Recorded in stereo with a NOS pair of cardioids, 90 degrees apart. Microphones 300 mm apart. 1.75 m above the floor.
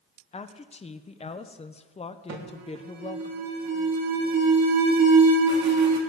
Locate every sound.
0.3 s a woman speaking: 20° left, 0.7 m
2.3 s an alarm: 65° right, 2.5 m